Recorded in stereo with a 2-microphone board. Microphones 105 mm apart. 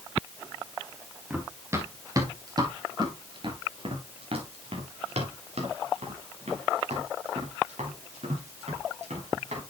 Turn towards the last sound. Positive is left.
turn(degrees=-90)